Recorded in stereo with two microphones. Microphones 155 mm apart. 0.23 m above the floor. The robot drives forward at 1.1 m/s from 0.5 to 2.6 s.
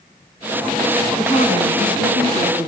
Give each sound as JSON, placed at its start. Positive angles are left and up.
{"t": 1.2, "sound": "a woman speaking", "side_deg": 40, "distance_m": 2.0}